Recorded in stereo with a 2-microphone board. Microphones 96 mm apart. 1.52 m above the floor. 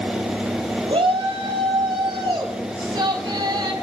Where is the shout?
75° right (ahead or behind), 4.5 m; by 3.7 s 45° right (ahead or behind), 5.5 m.